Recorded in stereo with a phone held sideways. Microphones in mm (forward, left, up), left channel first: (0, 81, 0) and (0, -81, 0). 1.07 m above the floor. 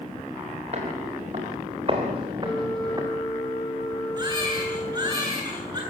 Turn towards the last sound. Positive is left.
turn(degrees=-25)  # may be behind; listen again after turning